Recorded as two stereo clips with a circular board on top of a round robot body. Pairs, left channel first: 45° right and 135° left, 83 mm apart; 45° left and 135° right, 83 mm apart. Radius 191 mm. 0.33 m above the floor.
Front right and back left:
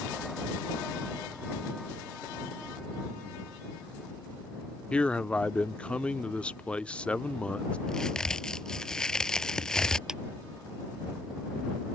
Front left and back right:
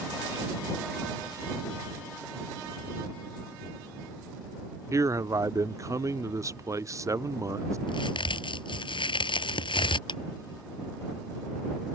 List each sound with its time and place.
4.9 s a man speaking: 115° right
7.9 s a crack: 35° left
10.1 s a clap: 50° left